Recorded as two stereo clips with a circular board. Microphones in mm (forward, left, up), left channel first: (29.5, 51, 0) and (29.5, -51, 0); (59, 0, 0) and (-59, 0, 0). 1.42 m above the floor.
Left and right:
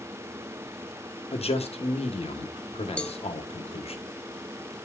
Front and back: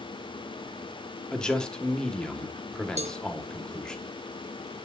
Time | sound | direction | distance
1.3 | a man speaking | 85° left | 1.2 m
3.0 | a cowbell | 170° left | 0.6 m